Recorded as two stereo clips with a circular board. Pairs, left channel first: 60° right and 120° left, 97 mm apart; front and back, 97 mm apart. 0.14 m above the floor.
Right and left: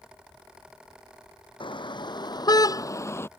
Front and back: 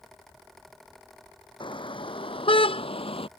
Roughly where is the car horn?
Ahead right.